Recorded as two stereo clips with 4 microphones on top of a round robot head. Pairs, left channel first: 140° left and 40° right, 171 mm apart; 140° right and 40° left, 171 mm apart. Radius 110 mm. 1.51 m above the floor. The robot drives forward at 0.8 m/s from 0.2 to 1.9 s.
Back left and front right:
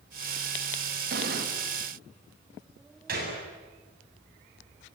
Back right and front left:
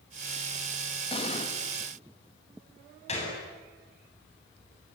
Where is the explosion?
80° right, 2.5 m; by 1.5 s 85° right, 2.5 m.